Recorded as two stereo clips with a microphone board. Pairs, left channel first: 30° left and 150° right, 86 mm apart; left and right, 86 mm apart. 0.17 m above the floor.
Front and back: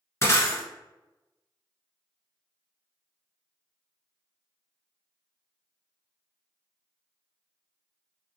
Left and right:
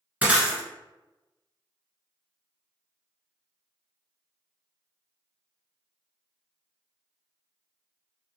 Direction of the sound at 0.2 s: 20° right.